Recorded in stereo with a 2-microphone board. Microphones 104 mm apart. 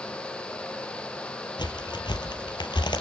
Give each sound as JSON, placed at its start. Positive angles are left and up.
{"t": 1.6, "sound": "a crack", "side_deg": 45, "distance_m": 2.5}